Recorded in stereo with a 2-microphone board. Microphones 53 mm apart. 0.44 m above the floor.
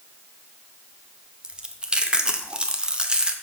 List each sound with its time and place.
1.4 s chewing: 20° right (ahead or behind), 0.7 m